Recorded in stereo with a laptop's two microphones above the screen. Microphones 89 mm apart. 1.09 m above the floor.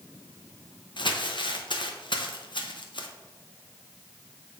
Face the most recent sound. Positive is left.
turn(degrees=65)  # may be behind; listen again after turning